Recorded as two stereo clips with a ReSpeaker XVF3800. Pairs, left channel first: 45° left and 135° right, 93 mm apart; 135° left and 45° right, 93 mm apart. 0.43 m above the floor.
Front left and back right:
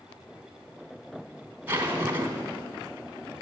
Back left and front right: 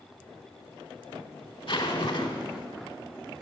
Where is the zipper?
160° left, 1.4 m.